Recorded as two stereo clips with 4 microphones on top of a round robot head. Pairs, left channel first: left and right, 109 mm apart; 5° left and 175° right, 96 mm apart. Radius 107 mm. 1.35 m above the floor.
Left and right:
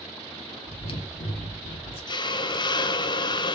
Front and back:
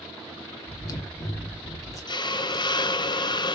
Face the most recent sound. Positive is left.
turn(degrees=45)